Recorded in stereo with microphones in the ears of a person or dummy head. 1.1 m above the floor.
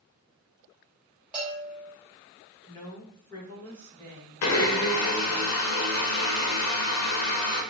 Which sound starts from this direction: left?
A blender, at 4.4 s.